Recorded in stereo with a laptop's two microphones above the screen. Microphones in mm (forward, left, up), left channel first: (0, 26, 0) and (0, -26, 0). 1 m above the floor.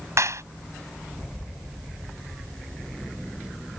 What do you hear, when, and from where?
0.2 s a clap: 70° right (ahead or behind)